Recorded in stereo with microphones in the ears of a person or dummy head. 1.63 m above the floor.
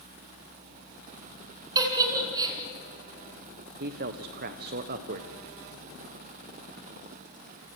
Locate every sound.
1.8 s a giggle: 20° right (ahead or behind), 3 m
3.8 s a man speaking: 50° right (ahead or behind), 1.1 m